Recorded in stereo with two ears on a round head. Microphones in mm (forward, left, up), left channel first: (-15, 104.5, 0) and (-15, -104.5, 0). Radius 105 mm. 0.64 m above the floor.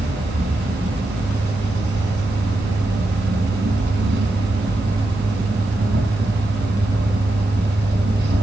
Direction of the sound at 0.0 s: 45° right (ahead or behind).